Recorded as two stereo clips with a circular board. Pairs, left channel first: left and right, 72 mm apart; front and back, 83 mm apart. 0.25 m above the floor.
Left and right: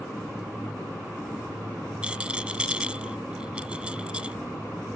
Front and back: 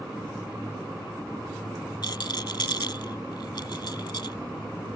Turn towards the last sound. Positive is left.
turn(degrees=-15)